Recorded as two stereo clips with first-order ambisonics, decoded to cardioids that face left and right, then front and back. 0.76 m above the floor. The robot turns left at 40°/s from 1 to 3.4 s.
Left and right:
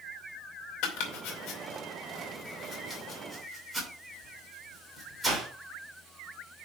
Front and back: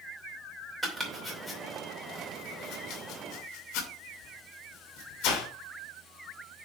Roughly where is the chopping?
Left.